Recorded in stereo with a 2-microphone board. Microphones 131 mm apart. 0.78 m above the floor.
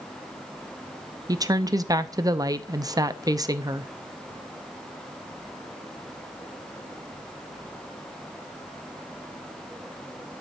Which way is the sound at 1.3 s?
30° right (ahead or behind).